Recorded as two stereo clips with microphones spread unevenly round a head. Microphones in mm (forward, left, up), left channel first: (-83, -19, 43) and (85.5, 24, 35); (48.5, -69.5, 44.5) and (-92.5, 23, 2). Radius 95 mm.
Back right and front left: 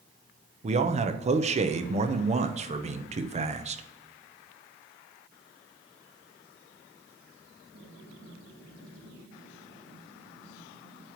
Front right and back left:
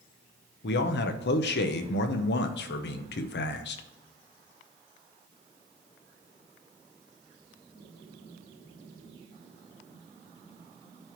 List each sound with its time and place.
0.6 s a man speaking: 20° right, 0.7 m